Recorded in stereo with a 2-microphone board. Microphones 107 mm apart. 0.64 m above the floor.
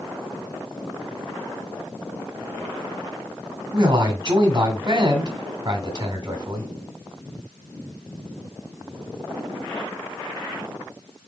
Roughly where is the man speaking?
Right.